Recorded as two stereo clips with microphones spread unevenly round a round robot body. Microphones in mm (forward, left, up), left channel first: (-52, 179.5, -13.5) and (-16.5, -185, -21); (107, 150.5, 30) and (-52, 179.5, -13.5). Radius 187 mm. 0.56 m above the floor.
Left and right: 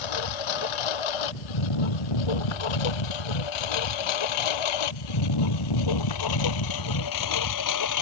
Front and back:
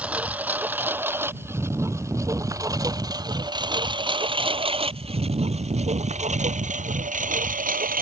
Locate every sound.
0.0 s a lawn mower: 85° left; by 8.0 s 135° left